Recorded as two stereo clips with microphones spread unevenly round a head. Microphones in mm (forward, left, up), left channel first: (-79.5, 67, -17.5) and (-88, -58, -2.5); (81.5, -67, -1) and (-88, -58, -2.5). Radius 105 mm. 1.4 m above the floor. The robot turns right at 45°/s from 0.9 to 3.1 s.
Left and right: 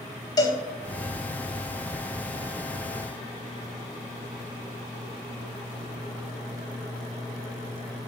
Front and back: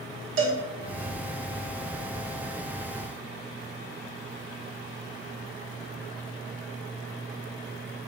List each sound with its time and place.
0.4 s a cowbell: 145° left, 2 m